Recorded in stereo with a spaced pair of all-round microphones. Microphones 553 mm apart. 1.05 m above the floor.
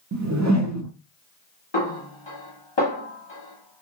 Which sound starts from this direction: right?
A whoosh, at 0.1 s.